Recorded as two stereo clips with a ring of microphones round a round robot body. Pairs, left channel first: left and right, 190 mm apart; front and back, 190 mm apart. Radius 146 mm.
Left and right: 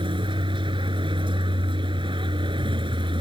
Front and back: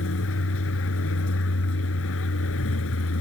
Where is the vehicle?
25° right.